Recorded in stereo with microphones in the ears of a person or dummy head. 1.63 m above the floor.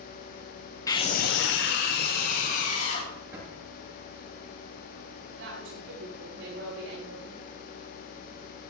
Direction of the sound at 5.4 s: 65° right (ahead or behind).